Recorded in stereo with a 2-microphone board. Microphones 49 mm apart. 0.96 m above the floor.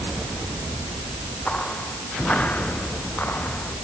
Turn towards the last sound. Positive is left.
turn(degrees=35)  # may be behind; listen again after turning